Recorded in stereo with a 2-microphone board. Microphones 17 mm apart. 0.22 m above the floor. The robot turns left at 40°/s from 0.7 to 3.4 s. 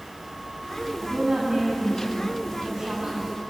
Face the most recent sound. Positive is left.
turn(degrees=-160)